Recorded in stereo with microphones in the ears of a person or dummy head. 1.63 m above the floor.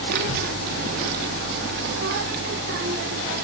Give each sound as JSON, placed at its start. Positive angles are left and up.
{"t": 0.1, "sound": "a child speaking", "side_deg": -55, "distance_m": 1.1}